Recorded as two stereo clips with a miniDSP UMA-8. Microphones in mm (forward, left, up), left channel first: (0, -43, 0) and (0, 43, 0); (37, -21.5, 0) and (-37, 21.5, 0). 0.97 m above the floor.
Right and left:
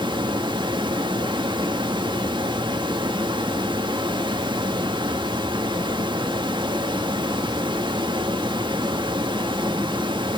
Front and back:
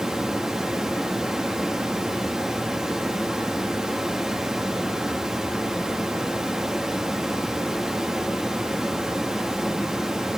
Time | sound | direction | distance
0.0 | running water | 65° left | 1.6 m